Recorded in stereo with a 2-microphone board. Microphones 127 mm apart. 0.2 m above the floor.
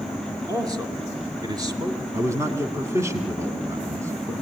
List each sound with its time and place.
0.5 s a man speaking: 30° right (ahead or behind), 2.5 m
2.1 s a man speaking: 25° right (ahead or behind), 2 m